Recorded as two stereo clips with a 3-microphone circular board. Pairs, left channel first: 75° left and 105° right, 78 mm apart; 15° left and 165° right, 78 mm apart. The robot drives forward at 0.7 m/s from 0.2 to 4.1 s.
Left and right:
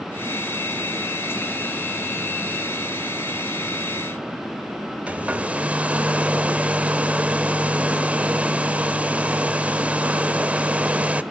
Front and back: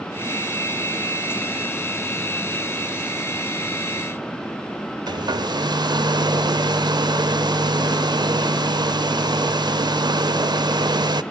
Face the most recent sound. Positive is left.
turn(degrees=-175)